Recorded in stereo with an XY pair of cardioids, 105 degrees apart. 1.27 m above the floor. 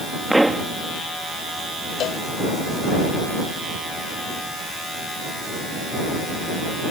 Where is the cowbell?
65° left.